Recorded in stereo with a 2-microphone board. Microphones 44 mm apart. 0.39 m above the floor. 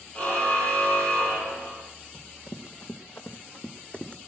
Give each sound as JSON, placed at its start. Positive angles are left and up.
{"t": 0.1, "sound": "a car horn", "side_deg": 30, "distance_m": 7.0}
{"t": 2.1, "sound": "running footsteps", "side_deg": 85, "distance_m": 2.5}